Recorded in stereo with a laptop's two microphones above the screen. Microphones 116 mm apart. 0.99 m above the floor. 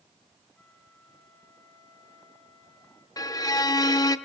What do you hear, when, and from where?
0.6 s a flute: 15° left (ahead or behind), 6.5 m
3.2 s a violin: 30° left (ahead or behind), 0.7 m